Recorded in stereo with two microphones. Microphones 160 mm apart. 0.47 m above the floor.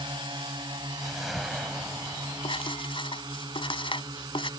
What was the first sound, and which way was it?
A drone, 30° right (ahead or behind).